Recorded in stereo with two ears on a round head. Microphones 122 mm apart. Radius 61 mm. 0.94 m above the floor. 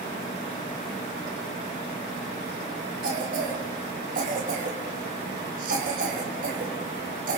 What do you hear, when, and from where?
3.0 s a cough: 65° right (ahead or behind), 4.5 m